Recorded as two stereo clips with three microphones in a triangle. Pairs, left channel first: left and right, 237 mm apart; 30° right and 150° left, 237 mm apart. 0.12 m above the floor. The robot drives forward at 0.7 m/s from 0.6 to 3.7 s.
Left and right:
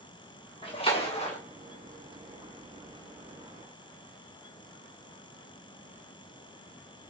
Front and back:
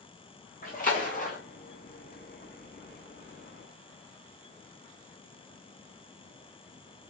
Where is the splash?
20° left, 3 m; by 1.4 s 25° left, 2.5 m.